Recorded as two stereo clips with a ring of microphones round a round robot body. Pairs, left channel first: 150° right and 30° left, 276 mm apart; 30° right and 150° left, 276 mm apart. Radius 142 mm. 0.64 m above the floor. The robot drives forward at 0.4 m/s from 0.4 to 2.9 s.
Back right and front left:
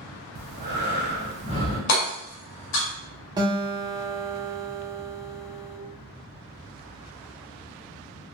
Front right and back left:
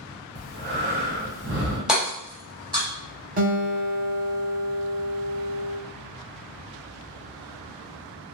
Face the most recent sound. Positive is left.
turn(degrees=100)